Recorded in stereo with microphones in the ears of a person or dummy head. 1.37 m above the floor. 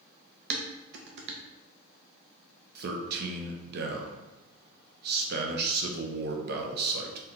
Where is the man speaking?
60° right (ahead or behind), 0.7 m.